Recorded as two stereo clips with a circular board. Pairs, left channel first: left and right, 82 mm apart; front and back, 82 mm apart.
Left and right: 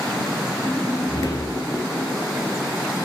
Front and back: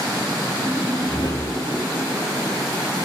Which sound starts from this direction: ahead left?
A whoosh, at 0.6 s.